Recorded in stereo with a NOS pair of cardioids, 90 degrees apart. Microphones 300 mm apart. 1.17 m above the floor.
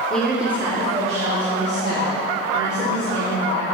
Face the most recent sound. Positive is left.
turn(degrees=-65)